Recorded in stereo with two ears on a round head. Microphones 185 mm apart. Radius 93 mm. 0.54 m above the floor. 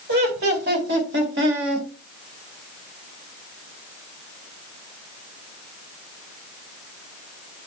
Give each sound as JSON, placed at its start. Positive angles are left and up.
{"t": 0.1, "sound": "laughter", "side_deg": -55, "distance_m": 2.5}